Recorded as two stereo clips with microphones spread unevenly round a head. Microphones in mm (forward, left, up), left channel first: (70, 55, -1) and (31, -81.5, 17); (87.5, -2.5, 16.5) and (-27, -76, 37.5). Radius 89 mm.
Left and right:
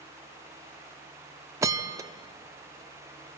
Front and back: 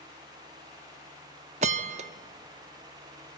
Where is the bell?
170° right, 0.5 m.